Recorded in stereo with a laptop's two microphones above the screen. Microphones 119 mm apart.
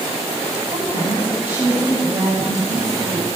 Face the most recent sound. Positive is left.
turn(degrees=-20)  # may be behind; listen again after turning